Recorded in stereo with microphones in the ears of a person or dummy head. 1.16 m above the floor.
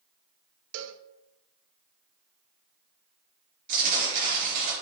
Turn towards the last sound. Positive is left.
turn(degrees=-50)  # may be behind; listen again after turning